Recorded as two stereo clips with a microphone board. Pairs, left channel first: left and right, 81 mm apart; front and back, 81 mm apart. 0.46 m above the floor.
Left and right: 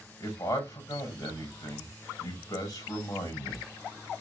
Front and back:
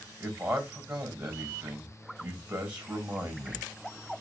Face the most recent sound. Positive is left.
turn(degrees=110)